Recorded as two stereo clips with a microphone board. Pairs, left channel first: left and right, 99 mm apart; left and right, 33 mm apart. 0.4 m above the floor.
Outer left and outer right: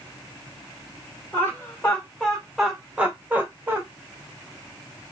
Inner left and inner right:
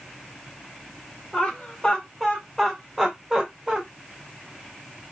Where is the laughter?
20° left (ahead or behind), 1.2 m; by 3.8 s 25° right (ahead or behind), 1.2 m.